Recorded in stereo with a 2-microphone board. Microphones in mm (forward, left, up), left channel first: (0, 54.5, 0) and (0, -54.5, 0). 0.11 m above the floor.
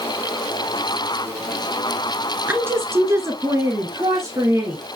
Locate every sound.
2.5 s a woman speaking: 20° right (ahead or behind), 1.3 m; by 4.8 s 25° right (ahead or behind), 2 m